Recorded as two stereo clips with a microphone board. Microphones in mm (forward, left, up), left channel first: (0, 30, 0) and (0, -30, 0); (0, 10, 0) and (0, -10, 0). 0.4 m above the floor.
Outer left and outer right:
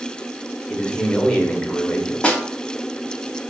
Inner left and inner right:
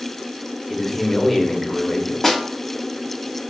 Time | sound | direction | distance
0.7 | a man speaking | 20° left (ahead or behind) | 0.9 m
2.2 | a snare drum | 20° left (ahead or behind) | 0.7 m